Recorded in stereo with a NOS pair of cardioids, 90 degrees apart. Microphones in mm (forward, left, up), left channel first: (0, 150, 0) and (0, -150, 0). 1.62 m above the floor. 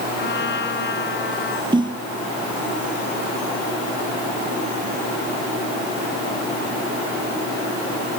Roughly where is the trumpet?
Ahead left.